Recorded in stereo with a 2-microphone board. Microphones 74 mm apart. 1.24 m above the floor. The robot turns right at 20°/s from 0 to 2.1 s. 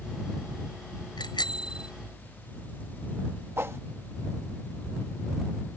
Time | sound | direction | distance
1.2 | a bicycle bell | 80° left | ?
3.6 | a whoosh | 35° right (ahead or behind) | ?